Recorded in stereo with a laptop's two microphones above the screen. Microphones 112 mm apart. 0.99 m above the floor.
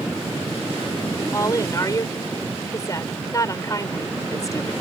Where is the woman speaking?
30° left (ahead or behind).